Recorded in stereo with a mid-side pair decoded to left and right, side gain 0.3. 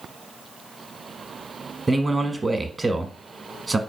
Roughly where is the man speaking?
Ahead right.